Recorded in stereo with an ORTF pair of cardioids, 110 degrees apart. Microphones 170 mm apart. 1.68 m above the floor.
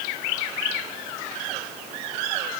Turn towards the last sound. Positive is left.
No sound to turn to.